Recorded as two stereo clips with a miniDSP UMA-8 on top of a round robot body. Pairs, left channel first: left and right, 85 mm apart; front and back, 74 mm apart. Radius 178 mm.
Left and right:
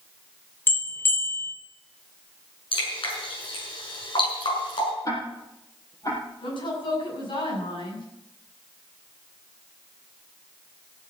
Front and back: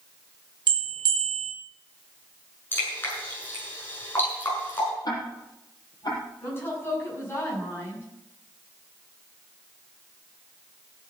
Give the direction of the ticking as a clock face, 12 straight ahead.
11 o'clock.